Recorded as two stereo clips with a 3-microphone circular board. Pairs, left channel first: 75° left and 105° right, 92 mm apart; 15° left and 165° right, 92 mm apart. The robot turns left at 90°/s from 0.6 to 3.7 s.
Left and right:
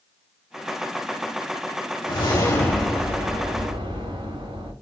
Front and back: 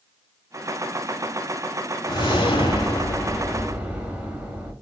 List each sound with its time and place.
2.1 s a whoosh: 60° left, 1.4 m; by 4.7 s 90° right, 1.4 m